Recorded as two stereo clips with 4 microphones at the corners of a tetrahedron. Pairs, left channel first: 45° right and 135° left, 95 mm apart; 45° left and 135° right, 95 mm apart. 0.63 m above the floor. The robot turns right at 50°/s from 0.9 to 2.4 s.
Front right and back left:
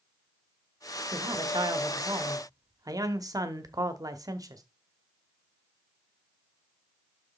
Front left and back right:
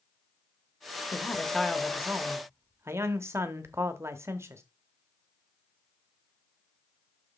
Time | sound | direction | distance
1.1 | a man speaking | 105° left | 1.0 m